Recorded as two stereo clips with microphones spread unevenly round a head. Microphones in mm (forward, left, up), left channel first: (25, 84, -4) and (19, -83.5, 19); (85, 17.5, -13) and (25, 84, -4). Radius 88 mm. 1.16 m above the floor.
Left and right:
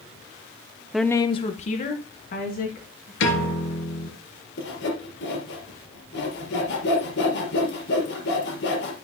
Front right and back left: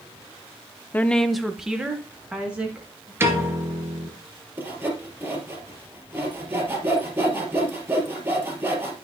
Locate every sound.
0.9 s a woman speaking: straight ahead, 0.5 m; by 3.1 s 55° left, 2.5 m
3.2 s a piano: 70° left, 3 m
4.6 s sawing: 70° left, 4 m